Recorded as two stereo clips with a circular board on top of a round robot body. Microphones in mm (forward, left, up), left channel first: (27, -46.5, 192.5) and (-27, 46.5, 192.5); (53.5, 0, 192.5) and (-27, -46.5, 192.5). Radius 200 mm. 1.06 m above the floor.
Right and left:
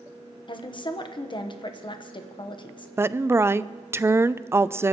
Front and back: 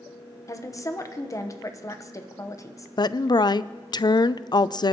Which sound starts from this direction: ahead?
A woman speaking, at 0.5 s.